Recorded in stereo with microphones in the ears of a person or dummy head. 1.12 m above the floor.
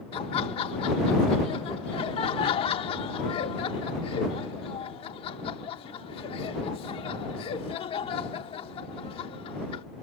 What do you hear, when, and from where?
0.1 s laughter: 30° left (ahead or behind)